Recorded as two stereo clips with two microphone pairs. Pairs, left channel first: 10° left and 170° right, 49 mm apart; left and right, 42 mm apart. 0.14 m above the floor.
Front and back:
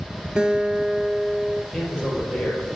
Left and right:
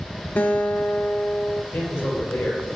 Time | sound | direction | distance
0.4 | a guitar | 125° left | 0.8 m
1.7 | a man speaking | 90° left | 4 m